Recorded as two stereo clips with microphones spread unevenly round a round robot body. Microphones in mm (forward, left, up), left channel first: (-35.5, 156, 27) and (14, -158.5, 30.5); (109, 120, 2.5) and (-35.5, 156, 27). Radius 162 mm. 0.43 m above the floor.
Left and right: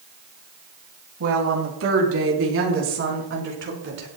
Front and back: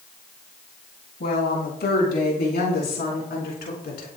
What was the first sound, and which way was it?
A woman speaking, 35° right.